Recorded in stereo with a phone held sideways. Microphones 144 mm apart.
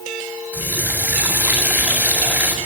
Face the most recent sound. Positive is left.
turn(degrees=-10)  # may be behind; listen again after turning